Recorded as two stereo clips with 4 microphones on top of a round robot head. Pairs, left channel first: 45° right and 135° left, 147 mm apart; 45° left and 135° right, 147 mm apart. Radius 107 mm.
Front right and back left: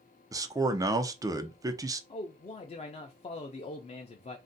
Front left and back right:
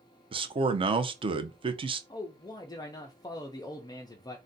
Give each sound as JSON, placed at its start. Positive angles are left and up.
{"t": 0.3, "sound": "a man speaking", "azimuth_deg": -170, "distance_m": 0.5}
{"t": 2.1, "sound": "a man speaking", "azimuth_deg": -10, "distance_m": 0.5}